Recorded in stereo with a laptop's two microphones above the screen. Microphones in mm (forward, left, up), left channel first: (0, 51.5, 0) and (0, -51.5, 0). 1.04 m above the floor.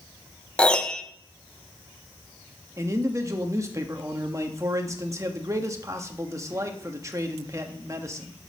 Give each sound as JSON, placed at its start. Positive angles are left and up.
{"t": 0.6, "sound": "a piano", "side_deg": 10, "distance_m": 0.9}
{"t": 2.8, "sound": "a man speaking", "side_deg": -30, "distance_m": 1.4}